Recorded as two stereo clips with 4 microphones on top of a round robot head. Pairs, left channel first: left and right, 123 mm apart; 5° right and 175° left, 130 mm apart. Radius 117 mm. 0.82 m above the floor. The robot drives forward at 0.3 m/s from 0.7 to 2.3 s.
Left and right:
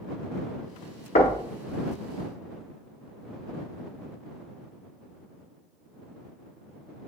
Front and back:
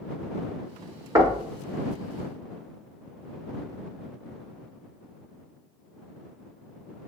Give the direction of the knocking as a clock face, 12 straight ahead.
8 o'clock.